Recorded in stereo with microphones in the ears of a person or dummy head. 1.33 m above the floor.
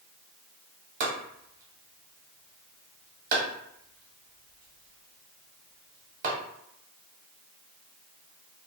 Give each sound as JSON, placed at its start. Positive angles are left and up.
{"t": 1.0, "sound": "chopping", "side_deg": -50, "distance_m": 1.0}